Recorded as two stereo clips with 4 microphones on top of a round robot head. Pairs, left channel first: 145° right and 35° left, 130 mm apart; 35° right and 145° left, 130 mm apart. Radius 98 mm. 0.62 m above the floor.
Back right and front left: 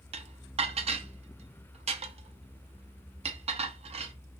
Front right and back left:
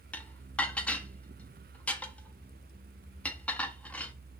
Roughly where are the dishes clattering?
Ahead left.